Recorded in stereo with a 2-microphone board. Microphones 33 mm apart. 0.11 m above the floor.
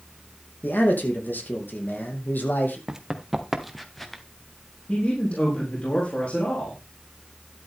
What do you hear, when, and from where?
0.6 s a man speaking: 70° left (ahead or behind), 5 m
2.9 s running footsteps: 15° right (ahead or behind), 1.9 m; by 4.2 s 10° left (ahead or behind), 2 m
4.9 s a man speaking: 40° left (ahead or behind), 6.5 m